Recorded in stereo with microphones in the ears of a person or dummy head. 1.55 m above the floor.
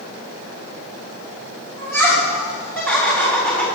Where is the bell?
No bell in this recording.